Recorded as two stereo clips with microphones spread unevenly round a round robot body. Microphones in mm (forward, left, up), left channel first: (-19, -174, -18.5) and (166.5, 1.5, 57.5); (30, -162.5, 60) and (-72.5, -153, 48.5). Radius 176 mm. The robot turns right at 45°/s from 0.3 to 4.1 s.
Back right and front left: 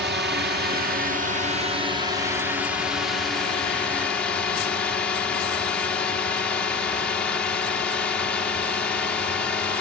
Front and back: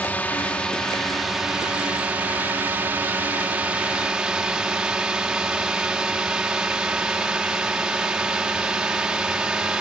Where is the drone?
60° left; by 9.8 s 130° right.